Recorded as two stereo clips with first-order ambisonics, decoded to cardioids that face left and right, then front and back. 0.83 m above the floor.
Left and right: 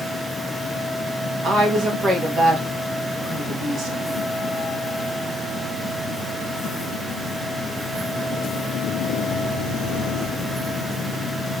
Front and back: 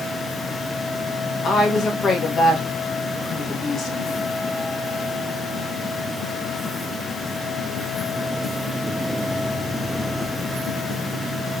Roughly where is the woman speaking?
Ahead right.